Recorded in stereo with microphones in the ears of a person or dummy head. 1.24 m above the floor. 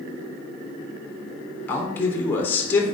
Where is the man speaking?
15° left (ahead or behind), 0.6 m.